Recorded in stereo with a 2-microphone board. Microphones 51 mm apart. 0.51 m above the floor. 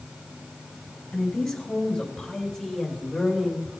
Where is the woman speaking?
10° left (ahead or behind), 3.5 m; by 3.7 s 5° right (ahead or behind), 2 m.